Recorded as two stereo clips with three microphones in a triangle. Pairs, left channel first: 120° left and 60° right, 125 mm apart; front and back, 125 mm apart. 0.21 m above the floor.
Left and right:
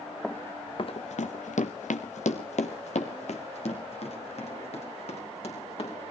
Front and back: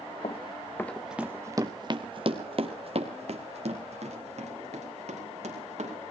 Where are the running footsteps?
35° left, 0.9 m; by 6.0 s 155° left, 5 m.